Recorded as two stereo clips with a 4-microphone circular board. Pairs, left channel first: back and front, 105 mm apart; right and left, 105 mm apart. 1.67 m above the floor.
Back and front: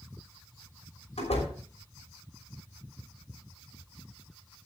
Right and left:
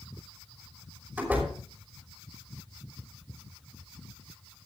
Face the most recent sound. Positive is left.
turn(degrees=165)